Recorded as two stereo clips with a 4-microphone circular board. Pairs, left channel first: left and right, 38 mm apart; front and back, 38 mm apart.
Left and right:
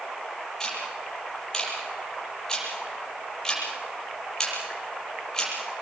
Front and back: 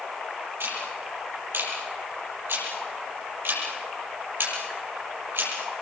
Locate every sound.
0.6 s ticking: 160° left, 8 m